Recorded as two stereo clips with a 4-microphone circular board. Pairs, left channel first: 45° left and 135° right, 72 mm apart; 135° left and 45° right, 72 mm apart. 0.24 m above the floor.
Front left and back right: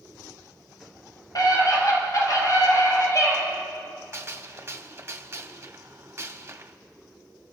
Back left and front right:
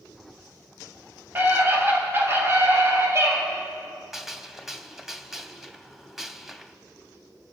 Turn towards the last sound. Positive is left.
turn(degrees=-130)